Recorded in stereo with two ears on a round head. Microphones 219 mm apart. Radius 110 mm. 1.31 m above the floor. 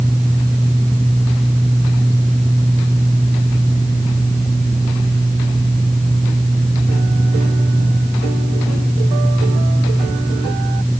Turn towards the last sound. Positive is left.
No sound to turn to.